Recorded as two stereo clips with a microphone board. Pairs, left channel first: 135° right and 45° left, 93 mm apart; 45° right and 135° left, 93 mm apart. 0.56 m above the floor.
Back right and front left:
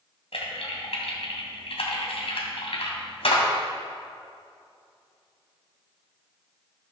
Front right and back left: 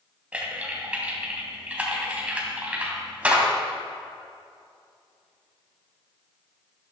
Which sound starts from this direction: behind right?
Typing on a keyboard, at 0.3 s.